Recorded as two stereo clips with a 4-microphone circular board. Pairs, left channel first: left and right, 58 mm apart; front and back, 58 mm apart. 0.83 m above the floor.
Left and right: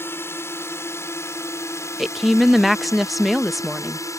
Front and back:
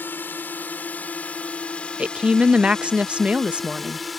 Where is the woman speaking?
175° right.